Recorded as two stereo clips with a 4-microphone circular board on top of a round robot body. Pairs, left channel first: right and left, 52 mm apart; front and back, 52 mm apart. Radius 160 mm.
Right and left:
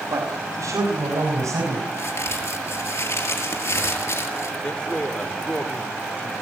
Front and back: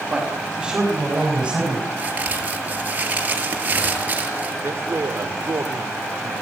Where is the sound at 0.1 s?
100° left, 5.5 m; by 1.8 s 105° left, 7 m.